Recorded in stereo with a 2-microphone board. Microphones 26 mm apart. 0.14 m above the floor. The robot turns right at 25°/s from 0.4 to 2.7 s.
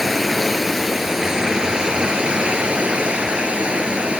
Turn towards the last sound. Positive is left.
turn(degrees=-125)